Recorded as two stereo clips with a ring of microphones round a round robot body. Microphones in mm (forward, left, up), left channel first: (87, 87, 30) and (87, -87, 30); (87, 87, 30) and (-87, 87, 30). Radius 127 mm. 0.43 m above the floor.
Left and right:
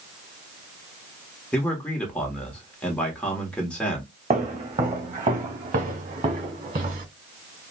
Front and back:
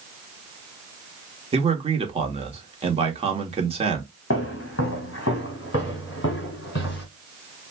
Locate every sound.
1.5 s a man speaking: 170° left, 1.1 m
4.3 s footsteps: 40° right, 1.5 m; by 7.0 s 50° right, 3.5 m